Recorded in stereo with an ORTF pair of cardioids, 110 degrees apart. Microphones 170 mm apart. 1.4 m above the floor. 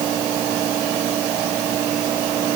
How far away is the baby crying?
I don't hear a baby crying.